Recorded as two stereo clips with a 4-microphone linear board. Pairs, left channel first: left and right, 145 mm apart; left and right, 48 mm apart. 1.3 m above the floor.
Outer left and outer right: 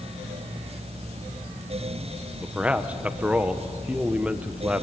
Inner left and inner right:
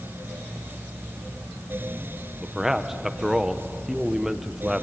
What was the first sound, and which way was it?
A man speaking, 10° right (ahead or behind).